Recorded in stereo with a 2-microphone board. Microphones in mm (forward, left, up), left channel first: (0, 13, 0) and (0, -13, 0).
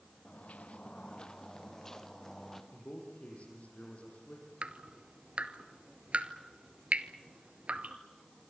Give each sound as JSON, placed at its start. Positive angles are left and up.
{"t": 0.2, "sound": "footsteps", "side_deg": 80, "distance_m": 1.0}
{"t": 2.7, "sound": "a man speaking", "side_deg": 70, "distance_m": 7.5}
{"t": 4.6, "sound": "dripping", "side_deg": -55, "distance_m": 1.0}